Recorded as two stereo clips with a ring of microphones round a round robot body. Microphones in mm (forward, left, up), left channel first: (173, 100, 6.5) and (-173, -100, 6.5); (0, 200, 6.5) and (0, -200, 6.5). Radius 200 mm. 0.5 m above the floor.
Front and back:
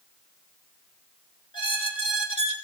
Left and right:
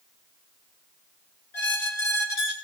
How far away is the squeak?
About 2.5 m.